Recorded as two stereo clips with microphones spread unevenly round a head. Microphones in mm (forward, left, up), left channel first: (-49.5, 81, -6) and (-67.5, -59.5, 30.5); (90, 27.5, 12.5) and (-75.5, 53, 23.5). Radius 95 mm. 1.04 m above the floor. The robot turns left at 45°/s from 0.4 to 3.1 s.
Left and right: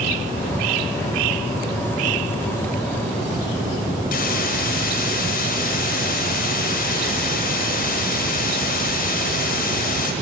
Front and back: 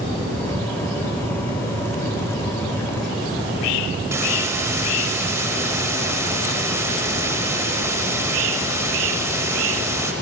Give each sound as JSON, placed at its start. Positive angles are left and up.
{"t": 4.1, "sound": "a hiss", "azimuth_deg": 100, "distance_m": 1.6}